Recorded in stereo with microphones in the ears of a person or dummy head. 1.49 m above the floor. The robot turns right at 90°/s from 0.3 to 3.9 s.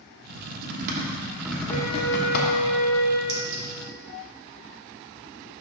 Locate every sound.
0.3 s typing on a keyboard: 55° right (ahead or behind), 1.1 m; by 2.6 s 60° left (ahead or behind), 1.1 m
1.7 s a flute: 135° left, 2.5 m; by 3.2 s 90° right, 2.5 m
3.3 s a clink: 75° right (ahead or behind), 2.5 m; by 3.6 s 70° right (ahead or behind), 2.5 m